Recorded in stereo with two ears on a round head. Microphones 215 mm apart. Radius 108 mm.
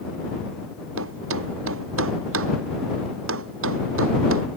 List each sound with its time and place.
1.0 s a thud: 60° right (ahead or behind)